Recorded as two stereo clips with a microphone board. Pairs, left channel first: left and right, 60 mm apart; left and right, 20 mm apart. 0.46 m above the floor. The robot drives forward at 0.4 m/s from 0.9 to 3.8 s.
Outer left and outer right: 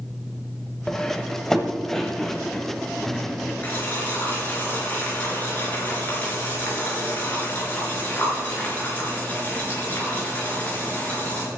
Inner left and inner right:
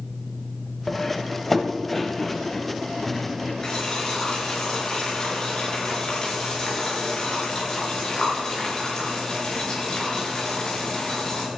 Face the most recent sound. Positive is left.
turn(degrees=30)  # may be behind; listen again after turning